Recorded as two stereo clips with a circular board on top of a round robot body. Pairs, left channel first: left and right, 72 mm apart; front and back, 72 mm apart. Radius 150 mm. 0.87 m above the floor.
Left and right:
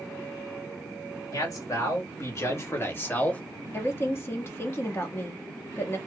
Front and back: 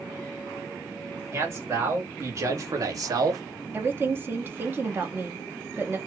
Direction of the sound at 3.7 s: 130° left.